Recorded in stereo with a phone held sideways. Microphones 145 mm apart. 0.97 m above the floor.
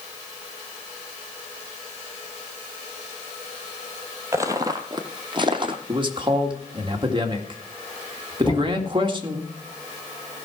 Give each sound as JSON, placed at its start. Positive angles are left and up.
{"t": 4.3, "sound": "footsteps", "side_deg": -20, "distance_m": 1.1}
{"t": 5.9, "sound": "a man speaking", "side_deg": -35, "distance_m": 1.9}
{"t": 8.4, "sound": "knocking", "side_deg": 10, "distance_m": 3.5}